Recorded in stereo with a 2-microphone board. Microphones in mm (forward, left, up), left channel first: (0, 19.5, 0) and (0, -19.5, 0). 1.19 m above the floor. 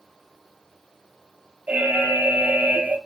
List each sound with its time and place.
1.7 s an alarm: 40° right (ahead or behind), 1.4 m